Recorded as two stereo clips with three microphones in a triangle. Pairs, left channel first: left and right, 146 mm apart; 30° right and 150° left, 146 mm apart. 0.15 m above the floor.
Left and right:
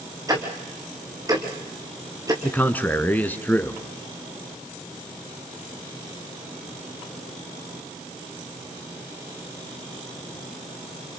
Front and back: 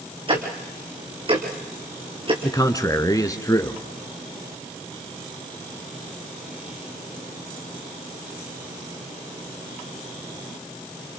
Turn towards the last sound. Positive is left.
turn(degrees=20)